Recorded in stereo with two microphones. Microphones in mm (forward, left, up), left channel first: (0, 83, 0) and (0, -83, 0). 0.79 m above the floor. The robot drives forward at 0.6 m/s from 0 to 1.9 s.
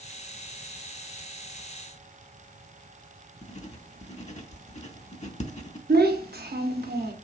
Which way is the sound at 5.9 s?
75° right (ahead or behind).